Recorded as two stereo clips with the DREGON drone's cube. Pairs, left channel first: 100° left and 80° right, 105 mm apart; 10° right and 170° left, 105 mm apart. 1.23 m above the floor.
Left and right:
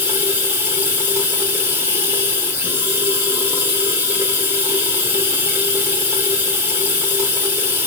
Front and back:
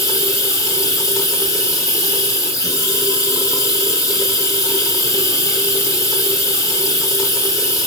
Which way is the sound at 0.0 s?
25° right.